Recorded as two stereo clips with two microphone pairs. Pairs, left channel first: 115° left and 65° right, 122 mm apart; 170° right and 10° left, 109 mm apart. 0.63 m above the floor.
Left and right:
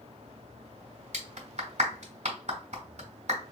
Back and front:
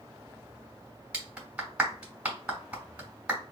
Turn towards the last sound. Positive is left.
turn(degrees=-65)